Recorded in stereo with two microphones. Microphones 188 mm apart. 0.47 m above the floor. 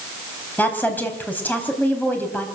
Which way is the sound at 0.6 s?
10° left (ahead or behind).